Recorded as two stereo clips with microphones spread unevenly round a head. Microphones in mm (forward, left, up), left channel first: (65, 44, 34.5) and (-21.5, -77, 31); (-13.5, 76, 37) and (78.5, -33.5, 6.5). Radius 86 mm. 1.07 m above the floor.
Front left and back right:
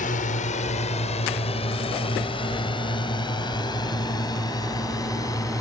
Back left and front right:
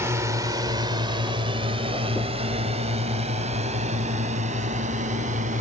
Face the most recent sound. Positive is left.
turn(degrees=-15)